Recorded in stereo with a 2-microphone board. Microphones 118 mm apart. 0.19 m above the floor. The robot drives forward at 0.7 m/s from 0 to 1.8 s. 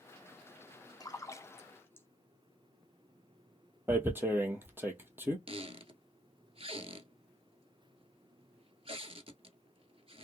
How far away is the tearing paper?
About 1.0 m.